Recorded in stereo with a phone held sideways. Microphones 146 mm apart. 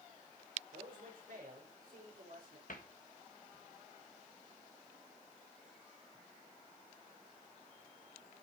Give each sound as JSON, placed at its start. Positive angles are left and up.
{"t": 0.7, "sound": "a man speaking", "side_deg": -80, "distance_m": 4.5}
{"t": 2.7, "sound": "a cupboard door", "side_deg": 70, "distance_m": 1.6}